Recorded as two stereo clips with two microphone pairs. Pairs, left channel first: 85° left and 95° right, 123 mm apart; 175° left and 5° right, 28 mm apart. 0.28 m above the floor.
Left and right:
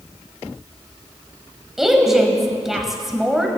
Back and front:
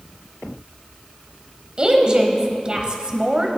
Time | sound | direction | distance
1.8 | a woman speaking | 10° right | 1.3 m